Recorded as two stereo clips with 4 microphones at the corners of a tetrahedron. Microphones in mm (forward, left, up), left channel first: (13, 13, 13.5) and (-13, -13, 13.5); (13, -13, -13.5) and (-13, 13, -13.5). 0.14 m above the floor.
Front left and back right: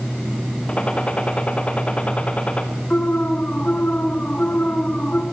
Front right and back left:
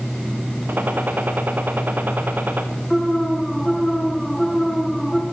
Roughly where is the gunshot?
Left.